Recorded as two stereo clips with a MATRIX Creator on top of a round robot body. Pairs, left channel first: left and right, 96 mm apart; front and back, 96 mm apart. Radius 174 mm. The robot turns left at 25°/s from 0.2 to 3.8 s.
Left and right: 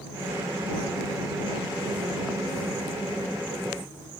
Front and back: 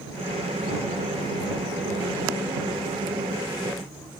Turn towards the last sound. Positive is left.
No sound to turn to.